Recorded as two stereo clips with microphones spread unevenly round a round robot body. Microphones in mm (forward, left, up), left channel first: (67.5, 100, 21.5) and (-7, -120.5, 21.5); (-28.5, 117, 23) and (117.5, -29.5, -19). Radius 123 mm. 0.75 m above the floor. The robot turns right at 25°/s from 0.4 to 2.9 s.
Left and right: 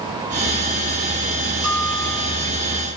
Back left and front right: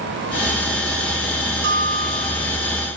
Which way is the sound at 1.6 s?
90° right.